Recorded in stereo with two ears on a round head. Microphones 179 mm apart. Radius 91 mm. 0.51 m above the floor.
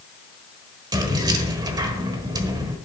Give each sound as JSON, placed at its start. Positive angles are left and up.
{"t": 0.9, "sound": "keys jangling", "side_deg": -20, "distance_m": 1.3}